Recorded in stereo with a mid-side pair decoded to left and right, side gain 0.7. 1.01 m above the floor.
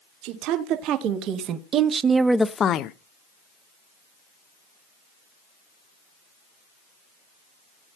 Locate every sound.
0.2 s a woman speaking: 65° right, 2 m; by 2.9 s 65° left, 0.7 m